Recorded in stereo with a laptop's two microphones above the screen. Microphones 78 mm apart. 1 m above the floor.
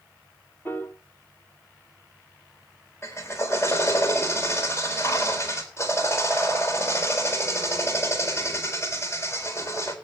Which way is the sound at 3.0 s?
35° left (ahead or behind).